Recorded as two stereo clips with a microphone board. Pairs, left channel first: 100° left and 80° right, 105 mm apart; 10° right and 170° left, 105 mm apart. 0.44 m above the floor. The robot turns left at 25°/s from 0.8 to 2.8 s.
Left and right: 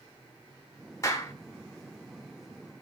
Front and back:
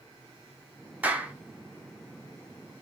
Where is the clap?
105° left, 1.1 m; by 1.3 s 100° left, 1.1 m.